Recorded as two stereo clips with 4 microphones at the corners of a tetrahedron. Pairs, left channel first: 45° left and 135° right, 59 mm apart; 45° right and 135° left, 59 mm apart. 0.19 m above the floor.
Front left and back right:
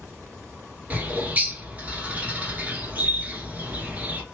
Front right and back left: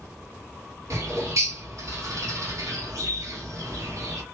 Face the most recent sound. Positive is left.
turn(degrees=160)